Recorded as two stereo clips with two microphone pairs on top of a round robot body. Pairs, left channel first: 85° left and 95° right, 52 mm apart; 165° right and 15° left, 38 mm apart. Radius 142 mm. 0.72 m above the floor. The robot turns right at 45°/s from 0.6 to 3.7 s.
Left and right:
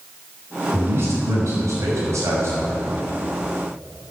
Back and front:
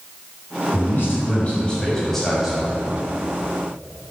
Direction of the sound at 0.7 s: 145° right.